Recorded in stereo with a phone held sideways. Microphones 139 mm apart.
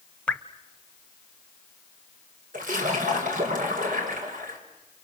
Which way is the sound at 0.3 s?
10° left (ahead or behind).